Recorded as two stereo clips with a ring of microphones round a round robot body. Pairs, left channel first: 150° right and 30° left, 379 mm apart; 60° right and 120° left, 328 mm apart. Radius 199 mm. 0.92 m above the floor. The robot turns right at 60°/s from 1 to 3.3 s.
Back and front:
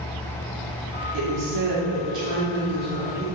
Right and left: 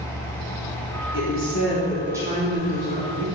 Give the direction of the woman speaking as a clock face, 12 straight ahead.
1 o'clock.